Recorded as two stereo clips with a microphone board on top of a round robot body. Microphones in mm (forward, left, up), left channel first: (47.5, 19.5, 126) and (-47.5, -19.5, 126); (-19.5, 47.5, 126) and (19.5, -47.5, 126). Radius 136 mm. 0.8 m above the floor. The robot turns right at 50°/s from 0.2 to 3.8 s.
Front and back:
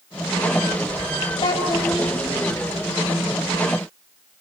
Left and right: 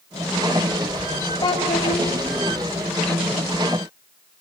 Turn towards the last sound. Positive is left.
turn(degrees=-175)